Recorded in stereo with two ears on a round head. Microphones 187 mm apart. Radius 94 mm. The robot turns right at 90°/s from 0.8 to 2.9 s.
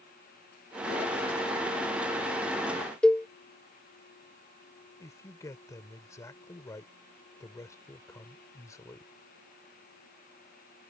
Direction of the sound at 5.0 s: 15° left (ahead or behind).